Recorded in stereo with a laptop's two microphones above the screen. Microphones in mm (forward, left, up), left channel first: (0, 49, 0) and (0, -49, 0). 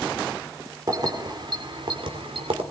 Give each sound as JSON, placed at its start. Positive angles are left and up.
{"t": 0.9, "sound": "keys jangling", "side_deg": -40, "distance_m": 2.5}